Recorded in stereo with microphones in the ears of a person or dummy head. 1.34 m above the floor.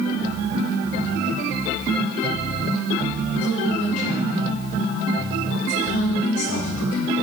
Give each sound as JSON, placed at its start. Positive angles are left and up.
{"t": 3.4, "sound": "a woman speaking", "side_deg": 35, "distance_m": 4.5}